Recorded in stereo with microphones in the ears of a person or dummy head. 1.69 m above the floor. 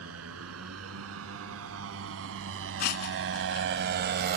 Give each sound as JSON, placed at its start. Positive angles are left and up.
{"t": 0.0, "sound": "a motorcycle", "side_deg": -80}
{"t": 2.8, "sound": "breaking glass", "side_deg": 50}